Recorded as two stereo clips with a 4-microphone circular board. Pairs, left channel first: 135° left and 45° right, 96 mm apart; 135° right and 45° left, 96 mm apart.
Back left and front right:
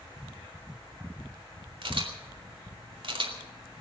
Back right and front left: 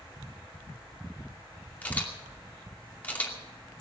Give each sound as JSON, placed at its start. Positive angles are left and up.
{"t": 1.8, "sound": "a camera shutter", "azimuth_deg": -65, "distance_m": 2.5}